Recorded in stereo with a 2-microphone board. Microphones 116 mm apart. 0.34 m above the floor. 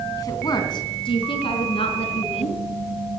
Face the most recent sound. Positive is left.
turn(degrees=60)  # may be behind; listen again after turning